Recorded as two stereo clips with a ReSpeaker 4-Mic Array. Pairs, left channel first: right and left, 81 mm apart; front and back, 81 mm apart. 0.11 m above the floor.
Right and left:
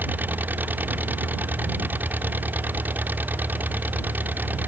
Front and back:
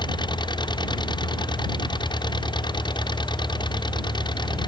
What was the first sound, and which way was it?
An engine running, 20° left.